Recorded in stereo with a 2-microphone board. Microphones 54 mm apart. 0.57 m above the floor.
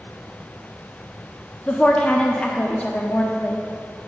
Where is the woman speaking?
25° left (ahead or behind), 0.6 m.